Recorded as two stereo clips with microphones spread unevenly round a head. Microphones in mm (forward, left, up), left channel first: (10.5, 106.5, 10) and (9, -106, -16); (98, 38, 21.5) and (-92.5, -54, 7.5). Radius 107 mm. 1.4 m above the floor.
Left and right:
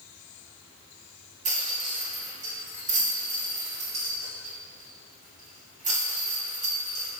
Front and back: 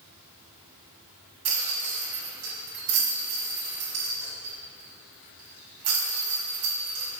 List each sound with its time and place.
1.4 s a rattle: 145° right, 2.5 m